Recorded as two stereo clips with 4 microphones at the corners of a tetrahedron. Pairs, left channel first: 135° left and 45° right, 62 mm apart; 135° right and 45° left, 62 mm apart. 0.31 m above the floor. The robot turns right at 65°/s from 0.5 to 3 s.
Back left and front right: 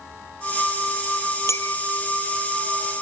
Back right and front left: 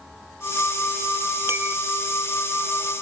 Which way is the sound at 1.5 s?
90° left.